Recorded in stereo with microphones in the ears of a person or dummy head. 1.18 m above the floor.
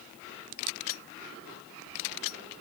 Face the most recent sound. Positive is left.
No sound to turn to.